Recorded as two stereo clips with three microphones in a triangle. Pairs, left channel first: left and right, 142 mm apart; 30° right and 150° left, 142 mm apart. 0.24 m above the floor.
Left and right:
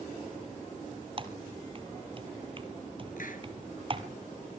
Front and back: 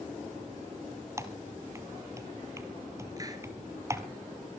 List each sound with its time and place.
1.2 s typing on a keyboard: 140° right, 1.3 m
3.2 s a hiss: 85° left, 2 m